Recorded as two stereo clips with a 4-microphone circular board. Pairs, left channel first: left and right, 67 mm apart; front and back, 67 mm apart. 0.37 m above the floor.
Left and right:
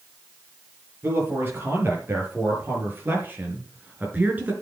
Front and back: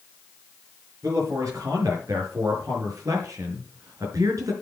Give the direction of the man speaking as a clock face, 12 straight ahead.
5 o'clock.